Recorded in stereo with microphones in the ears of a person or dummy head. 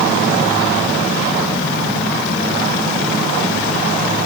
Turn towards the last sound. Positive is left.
No sound to turn to.